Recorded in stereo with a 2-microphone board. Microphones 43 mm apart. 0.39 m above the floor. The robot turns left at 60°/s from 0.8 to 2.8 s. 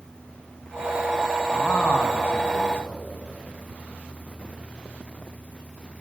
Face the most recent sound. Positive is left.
turn(degrees=60)